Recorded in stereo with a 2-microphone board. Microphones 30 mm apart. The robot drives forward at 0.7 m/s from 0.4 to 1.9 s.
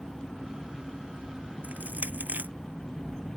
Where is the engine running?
5° right (ahead or behind).